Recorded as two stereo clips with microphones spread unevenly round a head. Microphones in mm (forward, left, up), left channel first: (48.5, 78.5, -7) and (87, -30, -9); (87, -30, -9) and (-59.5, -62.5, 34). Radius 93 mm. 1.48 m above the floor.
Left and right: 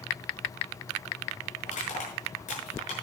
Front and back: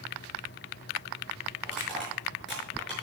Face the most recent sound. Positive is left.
turn(degrees=100)